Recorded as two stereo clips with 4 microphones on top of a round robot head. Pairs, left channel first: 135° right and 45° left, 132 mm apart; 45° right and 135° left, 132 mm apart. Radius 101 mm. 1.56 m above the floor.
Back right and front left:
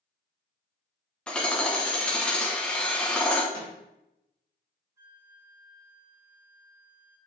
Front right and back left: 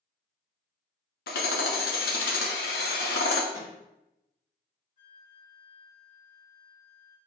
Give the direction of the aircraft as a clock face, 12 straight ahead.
No aircraft in this recording.